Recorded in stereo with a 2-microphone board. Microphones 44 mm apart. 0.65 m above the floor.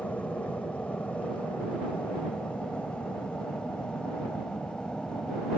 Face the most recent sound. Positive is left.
turn(degrees=25)  # may be behind; listen again after turning